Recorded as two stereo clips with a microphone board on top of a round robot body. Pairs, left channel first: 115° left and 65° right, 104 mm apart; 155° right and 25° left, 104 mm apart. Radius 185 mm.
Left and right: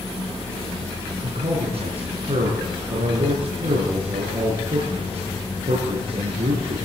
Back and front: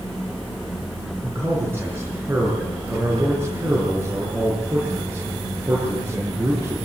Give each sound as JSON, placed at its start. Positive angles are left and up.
{"t": 1.2, "sound": "a man speaking", "azimuth_deg": -45, "distance_m": 7.5}